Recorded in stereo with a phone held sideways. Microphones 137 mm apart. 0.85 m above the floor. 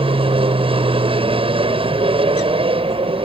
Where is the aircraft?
40° right (ahead or behind).